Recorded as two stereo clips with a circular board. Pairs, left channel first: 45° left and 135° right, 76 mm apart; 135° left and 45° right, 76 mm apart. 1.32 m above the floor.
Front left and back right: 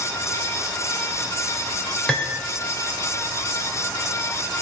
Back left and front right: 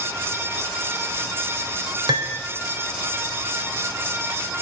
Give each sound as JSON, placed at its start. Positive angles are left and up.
{"t": 2.1, "sound": "cutlery clinking", "azimuth_deg": -35, "distance_m": 3.0}